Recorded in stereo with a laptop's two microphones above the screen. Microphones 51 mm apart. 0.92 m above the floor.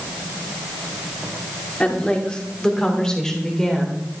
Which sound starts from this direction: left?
A woman speaking, at 1.8 s.